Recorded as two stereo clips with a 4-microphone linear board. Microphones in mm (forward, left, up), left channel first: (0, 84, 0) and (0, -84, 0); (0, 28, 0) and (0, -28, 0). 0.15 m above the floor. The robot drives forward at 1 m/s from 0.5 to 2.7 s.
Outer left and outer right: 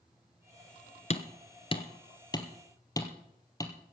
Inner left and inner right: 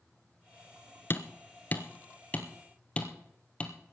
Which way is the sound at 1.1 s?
45° left (ahead or behind).